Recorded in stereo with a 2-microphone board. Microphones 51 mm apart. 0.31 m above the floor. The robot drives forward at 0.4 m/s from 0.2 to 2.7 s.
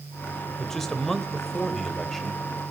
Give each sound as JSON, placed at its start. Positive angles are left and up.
{"t": 0.6, "sound": "a man speaking", "side_deg": 10, "distance_m": 1.1}